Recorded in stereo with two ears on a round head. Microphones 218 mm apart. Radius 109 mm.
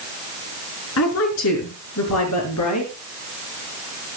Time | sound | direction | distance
1.0 | a woman speaking | 65° left (ahead or behind) | 5 m